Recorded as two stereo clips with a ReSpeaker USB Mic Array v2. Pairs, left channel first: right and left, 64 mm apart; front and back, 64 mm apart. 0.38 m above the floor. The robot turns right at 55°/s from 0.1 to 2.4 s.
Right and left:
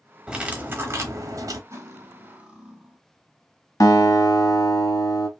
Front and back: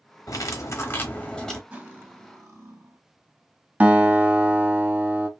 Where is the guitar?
120° right, 0.8 m.